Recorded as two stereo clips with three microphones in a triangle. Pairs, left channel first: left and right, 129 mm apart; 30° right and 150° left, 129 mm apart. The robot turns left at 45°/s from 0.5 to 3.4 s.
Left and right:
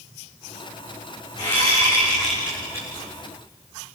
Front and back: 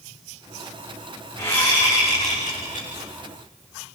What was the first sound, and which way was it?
A whoosh, 40° left.